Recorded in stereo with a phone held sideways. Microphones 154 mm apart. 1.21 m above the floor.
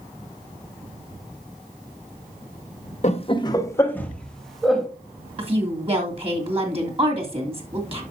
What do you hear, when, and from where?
3.0 s laughter: 45° left (ahead or behind), 1.0 m; by 4.9 s centre (ahead or behind), 2.5 m
5.4 s a woman speaking: 40° right (ahead or behind), 2.5 m